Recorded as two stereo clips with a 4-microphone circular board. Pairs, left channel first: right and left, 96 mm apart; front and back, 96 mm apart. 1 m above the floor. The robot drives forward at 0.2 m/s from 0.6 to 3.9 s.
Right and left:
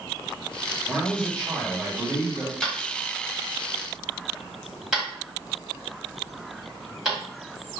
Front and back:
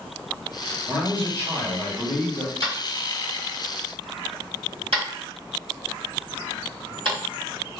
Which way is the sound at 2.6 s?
175° left.